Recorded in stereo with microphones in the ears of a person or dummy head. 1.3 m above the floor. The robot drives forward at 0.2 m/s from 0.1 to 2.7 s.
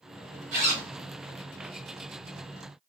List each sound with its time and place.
0.5 s a zipper: 40° right (ahead or behind), 1.3 m